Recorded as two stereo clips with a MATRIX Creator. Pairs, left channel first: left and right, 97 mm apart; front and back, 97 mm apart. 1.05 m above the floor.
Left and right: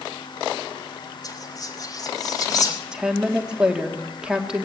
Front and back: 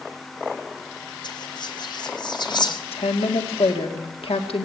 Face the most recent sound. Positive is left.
turn(degrees=-10)